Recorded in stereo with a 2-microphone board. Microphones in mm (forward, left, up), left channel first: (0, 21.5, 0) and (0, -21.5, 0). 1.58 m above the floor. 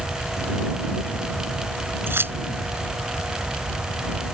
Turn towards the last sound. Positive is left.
turn(degrees=-65)  # may be behind; listen again after turning